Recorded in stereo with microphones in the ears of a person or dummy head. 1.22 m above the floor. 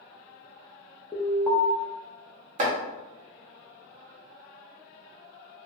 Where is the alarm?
5° left (ahead or behind), 0.6 m.